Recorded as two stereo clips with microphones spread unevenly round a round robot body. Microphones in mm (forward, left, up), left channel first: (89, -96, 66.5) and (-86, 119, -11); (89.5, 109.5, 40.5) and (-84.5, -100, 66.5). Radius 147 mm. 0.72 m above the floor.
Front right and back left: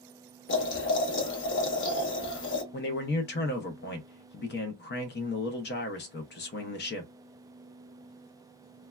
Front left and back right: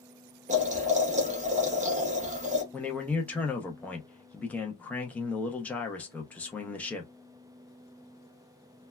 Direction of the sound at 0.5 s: 85° right.